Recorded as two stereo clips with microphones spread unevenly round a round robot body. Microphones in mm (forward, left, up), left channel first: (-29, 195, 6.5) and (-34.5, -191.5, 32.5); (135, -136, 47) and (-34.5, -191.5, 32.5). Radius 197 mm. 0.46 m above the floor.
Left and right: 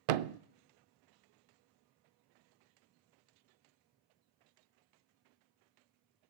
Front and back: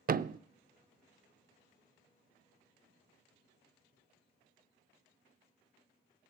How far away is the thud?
About 0.5 m.